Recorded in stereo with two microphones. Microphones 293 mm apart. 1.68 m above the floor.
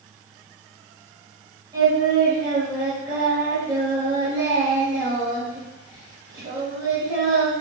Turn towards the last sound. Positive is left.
turn(degrees=-15)  # may be behind; listen again after turning